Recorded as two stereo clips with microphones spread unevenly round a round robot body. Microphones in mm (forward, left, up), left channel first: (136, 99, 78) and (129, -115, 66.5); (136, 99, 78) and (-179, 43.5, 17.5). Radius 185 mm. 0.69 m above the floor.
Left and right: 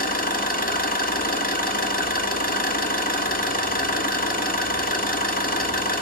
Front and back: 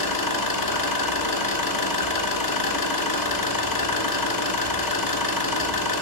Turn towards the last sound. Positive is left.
turn(degrees=35)